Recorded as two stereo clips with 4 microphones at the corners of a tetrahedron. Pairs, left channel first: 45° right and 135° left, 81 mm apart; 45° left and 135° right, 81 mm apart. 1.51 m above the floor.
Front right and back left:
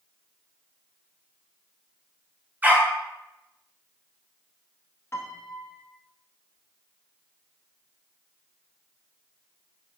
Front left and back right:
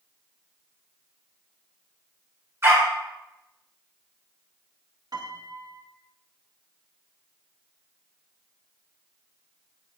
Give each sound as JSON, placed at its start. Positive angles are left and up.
{"t": 2.6, "sound": "a dog barking", "azimuth_deg": -165, "distance_m": 1.4}
{"t": 5.1, "sound": "a piano", "azimuth_deg": -105, "distance_m": 0.9}